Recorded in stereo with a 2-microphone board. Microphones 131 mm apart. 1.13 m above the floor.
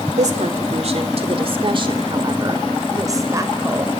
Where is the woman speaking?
70° right (ahead or behind), 3 m; by 3.9 s 20° right (ahead or behind), 4.5 m.